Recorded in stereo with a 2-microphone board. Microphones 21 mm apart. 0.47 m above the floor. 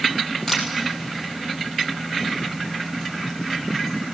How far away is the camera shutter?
About 3.5 m.